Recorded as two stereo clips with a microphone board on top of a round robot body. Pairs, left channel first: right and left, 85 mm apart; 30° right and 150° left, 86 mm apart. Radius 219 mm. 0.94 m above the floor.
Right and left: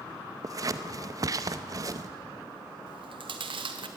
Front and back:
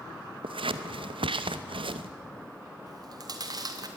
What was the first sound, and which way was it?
Scissors, 140° left.